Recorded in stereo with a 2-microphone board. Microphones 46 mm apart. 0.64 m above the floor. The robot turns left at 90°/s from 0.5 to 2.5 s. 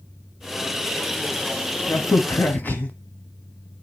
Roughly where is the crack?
Left.